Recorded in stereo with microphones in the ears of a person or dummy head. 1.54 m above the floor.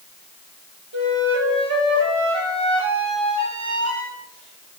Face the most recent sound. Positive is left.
turn(degrees=-80)